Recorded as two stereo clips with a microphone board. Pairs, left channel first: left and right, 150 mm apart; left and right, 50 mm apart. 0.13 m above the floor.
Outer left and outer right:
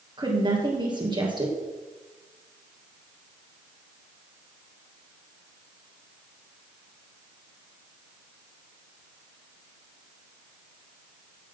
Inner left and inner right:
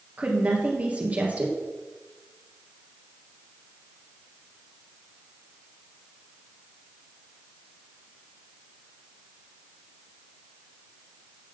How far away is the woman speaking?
About 2.5 m.